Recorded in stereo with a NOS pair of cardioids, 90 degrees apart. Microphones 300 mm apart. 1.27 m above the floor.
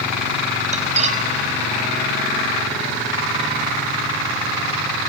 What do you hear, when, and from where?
0.7 s cutlery clinking: 25° right, 4 m